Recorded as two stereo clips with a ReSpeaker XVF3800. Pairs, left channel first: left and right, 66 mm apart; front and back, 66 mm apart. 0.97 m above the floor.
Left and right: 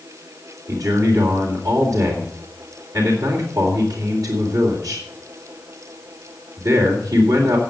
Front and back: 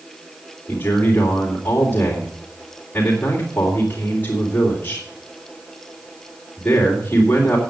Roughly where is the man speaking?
Ahead right.